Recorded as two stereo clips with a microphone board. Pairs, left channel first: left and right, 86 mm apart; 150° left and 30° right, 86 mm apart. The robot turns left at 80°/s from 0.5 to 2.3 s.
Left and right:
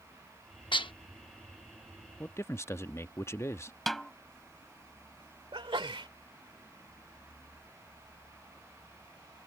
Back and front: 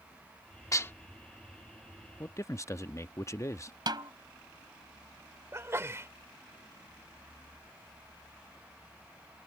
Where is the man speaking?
135° left; by 3.7 s 125° left.